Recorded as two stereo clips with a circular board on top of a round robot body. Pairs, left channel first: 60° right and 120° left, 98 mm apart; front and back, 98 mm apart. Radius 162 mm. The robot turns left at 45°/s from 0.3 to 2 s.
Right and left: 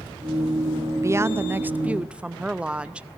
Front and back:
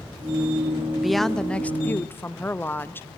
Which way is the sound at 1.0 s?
95° left.